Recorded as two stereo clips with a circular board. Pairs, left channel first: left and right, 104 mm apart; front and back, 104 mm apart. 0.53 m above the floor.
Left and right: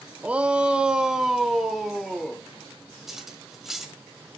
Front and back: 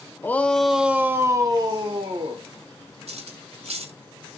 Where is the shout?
30° right, 0.7 m; by 2.4 s straight behind, 1.2 m.